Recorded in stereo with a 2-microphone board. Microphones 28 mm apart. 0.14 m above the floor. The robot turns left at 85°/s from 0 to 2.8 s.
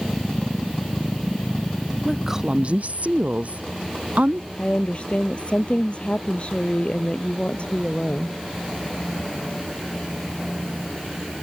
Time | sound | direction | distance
2.0 | a woman speaking | 5° left | ?
4.6 | a woman speaking | 45° left (ahead or behind) | ?